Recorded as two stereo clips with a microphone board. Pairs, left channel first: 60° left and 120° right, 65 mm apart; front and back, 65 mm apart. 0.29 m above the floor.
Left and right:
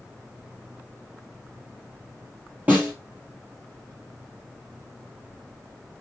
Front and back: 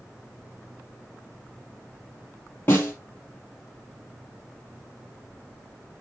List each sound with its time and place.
2.7 s a snare drum: 55° right, 3 m